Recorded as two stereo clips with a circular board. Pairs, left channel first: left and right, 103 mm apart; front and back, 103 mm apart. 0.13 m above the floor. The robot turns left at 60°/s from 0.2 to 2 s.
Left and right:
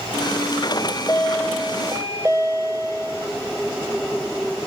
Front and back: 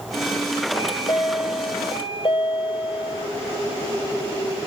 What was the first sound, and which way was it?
A chime, 45° left.